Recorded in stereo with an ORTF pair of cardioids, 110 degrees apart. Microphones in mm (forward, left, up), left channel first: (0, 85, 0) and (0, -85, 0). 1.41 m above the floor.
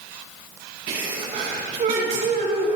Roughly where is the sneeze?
Ahead right.